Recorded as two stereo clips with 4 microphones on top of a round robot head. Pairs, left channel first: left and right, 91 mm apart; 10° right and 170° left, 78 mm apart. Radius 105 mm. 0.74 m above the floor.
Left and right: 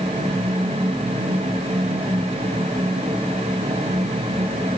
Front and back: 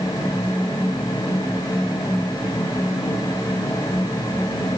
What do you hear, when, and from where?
Only background noise.